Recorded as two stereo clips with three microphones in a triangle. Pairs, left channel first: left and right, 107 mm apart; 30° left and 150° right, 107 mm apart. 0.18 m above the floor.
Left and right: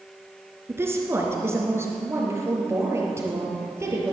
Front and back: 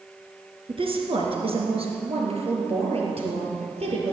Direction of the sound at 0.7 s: 155° right.